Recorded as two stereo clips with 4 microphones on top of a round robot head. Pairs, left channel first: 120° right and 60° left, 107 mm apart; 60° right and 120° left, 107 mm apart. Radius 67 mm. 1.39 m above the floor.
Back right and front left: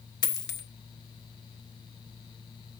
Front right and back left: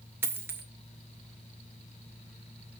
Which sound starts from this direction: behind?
A dropped coin, at 0.2 s.